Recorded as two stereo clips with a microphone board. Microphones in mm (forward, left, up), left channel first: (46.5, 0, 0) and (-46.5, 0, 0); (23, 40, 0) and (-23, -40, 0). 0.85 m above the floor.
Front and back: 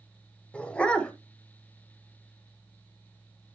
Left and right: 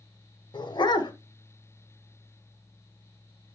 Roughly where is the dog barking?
Left.